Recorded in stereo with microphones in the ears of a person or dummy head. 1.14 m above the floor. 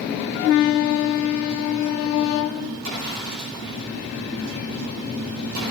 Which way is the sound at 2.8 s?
75° right (ahead or behind).